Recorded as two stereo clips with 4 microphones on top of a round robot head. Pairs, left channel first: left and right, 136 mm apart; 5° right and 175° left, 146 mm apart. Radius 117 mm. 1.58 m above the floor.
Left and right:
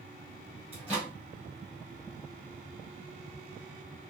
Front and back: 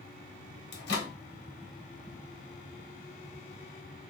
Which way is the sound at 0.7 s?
10° right.